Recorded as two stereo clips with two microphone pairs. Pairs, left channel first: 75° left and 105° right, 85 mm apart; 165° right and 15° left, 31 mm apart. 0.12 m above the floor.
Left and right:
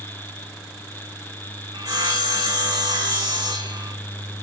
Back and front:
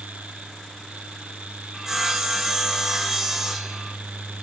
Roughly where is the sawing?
Ahead right.